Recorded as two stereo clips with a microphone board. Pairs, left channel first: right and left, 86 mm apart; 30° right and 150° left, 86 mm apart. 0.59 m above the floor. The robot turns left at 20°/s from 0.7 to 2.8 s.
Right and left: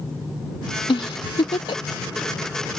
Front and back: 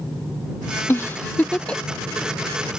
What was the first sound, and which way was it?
A giggle, 90° right.